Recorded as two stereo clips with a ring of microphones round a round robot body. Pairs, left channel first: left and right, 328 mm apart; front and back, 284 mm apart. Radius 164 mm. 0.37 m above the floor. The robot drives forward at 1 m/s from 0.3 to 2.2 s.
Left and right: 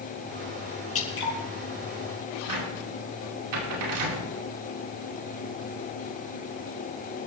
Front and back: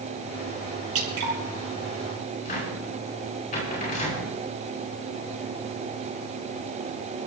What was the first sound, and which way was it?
Dripping, 140° left.